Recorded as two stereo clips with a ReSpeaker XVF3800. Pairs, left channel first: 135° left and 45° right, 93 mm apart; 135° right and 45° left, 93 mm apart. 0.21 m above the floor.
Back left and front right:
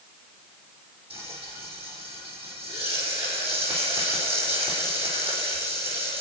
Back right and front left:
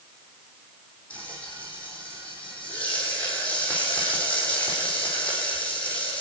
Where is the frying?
60° right, 6 m.